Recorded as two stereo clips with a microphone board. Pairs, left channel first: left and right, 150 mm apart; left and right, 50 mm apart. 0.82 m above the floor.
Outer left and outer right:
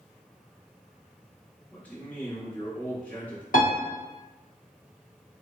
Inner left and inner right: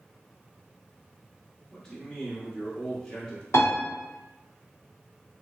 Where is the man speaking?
10° left (ahead or behind), 1.3 m.